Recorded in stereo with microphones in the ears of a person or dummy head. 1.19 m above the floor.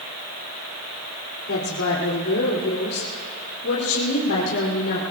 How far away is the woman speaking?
About 3 m.